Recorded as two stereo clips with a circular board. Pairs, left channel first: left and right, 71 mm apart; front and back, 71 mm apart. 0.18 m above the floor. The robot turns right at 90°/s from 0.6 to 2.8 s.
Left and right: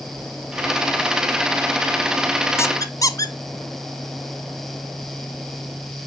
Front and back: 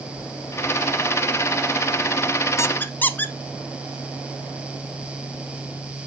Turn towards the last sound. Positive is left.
turn(degrees=60)